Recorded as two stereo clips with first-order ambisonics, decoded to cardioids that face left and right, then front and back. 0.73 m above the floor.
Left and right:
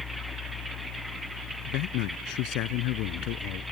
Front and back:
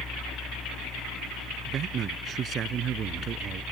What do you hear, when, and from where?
1.6 s a man speaking: 120° left